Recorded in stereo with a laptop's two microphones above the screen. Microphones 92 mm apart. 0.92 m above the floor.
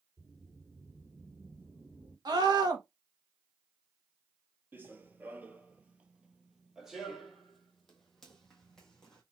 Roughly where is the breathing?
I don't hear breathing.